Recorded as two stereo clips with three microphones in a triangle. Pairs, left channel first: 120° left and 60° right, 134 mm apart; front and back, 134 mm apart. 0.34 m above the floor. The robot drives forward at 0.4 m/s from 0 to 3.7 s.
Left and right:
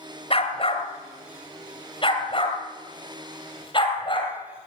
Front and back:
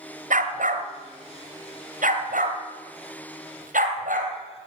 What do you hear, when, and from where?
0.3 s a dog barking: 165° left, 1.7 m; by 4.3 s 175° left, 3 m